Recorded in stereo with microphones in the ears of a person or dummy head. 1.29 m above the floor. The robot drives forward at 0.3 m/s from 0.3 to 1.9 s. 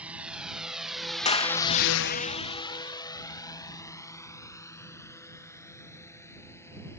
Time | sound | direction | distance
0.0 | a drone | 5° right (ahead or behind) | ?
1.2 | a clap | 30° left (ahead or behind) | ?